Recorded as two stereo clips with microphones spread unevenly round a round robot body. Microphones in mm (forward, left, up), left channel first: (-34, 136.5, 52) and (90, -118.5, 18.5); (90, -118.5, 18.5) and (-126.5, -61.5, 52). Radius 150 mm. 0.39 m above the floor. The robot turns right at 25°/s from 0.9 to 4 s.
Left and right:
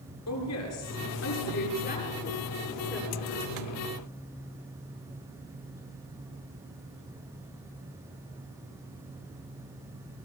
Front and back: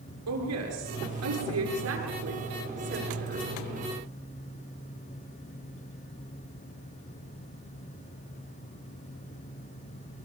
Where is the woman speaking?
155° left, 7.5 m; by 3.7 s 135° right, 7.5 m.